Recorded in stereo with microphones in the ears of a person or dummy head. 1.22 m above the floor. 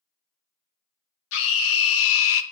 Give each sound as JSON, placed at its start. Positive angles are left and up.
{"t": 1.3, "sound": "a scream", "side_deg": 70, "distance_m": 1.7}